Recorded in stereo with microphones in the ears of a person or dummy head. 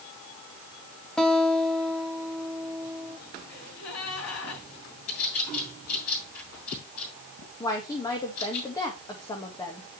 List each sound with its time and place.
1.2 s a guitar: 5° left (ahead or behind), 2.0 m
3.5 s a gasp: 80° left, 6.5 m
5.1 s a bird: 85° left, 7.5 m
7.6 s a woman speaking: 20° left (ahead or behind), 2 m